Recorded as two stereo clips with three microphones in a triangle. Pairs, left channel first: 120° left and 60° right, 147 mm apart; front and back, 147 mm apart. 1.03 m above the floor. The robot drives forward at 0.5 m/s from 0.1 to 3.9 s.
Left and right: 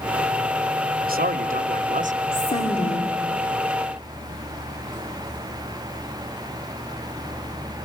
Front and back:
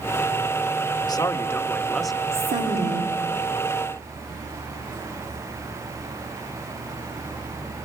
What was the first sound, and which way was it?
A man speaking, 60° right.